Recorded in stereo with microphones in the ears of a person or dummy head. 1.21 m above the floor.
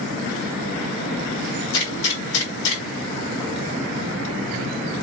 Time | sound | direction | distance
1.7 | a gunshot | 40° left (ahead or behind) | 1.8 m